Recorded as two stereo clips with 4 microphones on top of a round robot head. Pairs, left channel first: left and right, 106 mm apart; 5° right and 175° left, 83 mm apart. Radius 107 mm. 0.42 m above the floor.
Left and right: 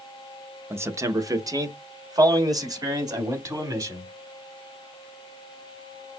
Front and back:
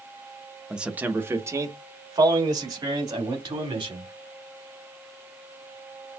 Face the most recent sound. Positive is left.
turn(degrees=-145)